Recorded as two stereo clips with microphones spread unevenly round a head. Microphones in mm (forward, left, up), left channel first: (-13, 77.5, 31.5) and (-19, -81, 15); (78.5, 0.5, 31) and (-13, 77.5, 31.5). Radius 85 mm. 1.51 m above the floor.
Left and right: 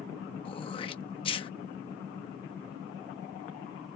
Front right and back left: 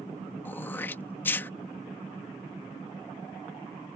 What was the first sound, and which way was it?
Throat clearing, 30° left.